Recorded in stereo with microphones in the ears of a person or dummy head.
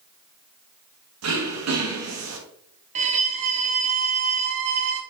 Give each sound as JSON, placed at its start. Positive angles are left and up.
{"t": 1.2, "sound": "throat clearing", "side_deg": -80, "distance_m": 2.0}
{"t": 3.0, "sound": "a violin", "side_deg": -35, "distance_m": 0.9}